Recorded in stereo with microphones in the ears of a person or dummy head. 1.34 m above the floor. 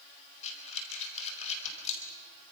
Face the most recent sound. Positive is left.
turn(degrees=45)  # may be behind; listen again after turning